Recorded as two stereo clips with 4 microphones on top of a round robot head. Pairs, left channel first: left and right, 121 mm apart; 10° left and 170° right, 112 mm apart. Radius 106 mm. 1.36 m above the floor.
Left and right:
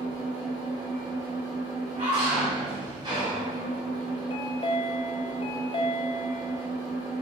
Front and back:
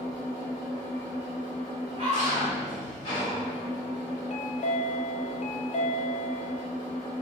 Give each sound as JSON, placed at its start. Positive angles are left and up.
{"t": 0.0, "sound": "an engine running", "azimuth_deg": -50, "distance_m": 1.5}
{"t": 2.0, "sound": "a scream", "azimuth_deg": -120, "distance_m": 1.9}
{"t": 4.3, "sound": "a chime", "azimuth_deg": 40, "distance_m": 0.5}